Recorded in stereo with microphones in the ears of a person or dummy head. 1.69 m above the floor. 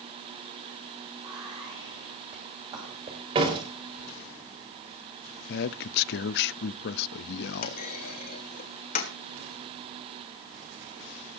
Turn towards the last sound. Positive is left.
turn(degrees=50)  # may be behind; listen again after turning